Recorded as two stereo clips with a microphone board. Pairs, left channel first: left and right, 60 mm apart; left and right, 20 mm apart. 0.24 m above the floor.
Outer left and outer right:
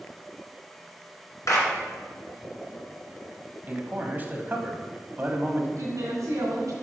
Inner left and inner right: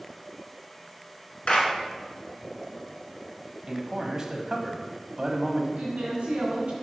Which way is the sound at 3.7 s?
30° right (ahead or behind).